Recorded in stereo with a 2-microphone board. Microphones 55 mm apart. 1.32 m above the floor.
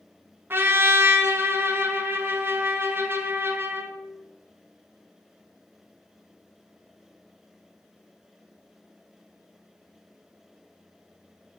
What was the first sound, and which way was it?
A trumpet, 40° right (ahead or behind).